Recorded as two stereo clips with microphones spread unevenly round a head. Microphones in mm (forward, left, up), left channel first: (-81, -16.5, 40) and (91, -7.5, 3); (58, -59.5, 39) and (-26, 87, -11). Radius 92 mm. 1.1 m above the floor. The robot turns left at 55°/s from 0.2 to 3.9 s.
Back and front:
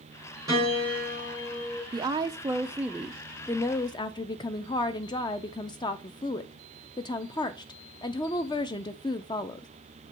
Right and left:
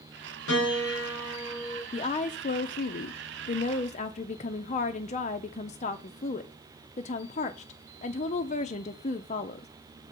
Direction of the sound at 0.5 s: 70° right.